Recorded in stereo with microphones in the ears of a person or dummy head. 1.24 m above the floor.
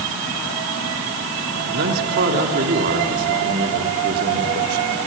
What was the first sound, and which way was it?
A man speaking, 50° right (ahead or behind).